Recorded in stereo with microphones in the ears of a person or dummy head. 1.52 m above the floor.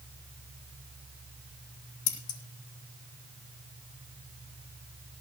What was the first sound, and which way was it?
Scissors, 75° left (ahead or behind).